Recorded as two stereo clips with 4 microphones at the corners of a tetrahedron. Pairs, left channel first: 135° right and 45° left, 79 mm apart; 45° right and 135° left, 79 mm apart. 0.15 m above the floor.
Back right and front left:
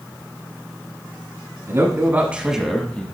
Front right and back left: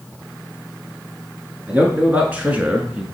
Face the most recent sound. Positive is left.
turn(degrees=-170)